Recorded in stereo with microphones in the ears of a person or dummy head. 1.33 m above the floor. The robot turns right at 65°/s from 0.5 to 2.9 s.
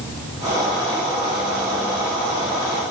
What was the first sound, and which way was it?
Only background noise.